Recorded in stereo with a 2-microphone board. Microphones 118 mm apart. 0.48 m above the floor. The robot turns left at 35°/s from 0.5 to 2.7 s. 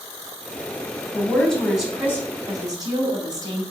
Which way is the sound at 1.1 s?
20° left.